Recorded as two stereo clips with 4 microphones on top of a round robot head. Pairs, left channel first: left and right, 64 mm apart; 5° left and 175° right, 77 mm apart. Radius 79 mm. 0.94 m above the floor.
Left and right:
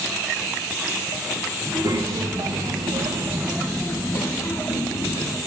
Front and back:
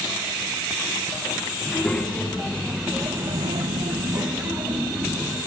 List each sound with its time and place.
1.6 s a child speaking: 75° right, 2.5 m; by 5.4 s 125° left, 2.5 m